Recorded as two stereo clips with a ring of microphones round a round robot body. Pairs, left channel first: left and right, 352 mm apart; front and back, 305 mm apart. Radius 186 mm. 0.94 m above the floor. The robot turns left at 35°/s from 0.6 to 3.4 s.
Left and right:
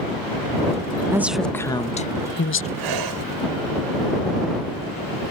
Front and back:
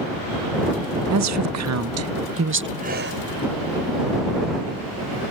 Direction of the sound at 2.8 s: 110° right.